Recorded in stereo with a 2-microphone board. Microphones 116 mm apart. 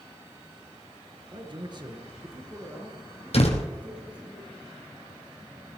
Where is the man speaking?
45° right (ahead or behind), 2 m; by 4.3 s 10° right (ahead or behind), 4.5 m.